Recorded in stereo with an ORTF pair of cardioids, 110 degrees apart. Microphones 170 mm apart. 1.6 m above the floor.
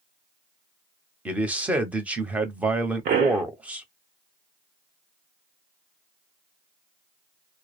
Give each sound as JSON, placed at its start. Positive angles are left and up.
{"t": 1.2, "sound": "a man speaking", "azimuth_deg": -10, "distance_m": 0.9}
{"t": 3.0, "sound": "a pop", "azimuth_deg": -65, "distance_m": 1.0}